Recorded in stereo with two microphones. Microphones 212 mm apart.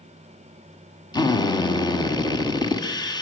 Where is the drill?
20° left (ahead or behind), 1.8 m.